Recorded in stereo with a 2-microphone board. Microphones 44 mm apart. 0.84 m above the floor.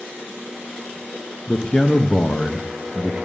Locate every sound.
1.5 s a man speaking: 25° left (ahead or behind), 0.6 m